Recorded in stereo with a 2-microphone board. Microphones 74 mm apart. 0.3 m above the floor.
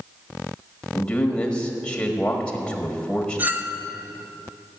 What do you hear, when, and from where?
0.9 s a man speaking: 15° left (ahead or behind), 1.4 m
3.4 s a clink: 25° right (ahead or behind), 0.7 m